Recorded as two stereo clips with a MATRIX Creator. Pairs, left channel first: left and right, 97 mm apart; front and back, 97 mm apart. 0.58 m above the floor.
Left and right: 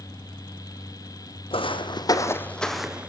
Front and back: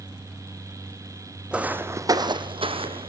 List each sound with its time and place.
1.5 s footsteps: 100° left, 1.7 m; by 3.1 s 165° right, 1.8 m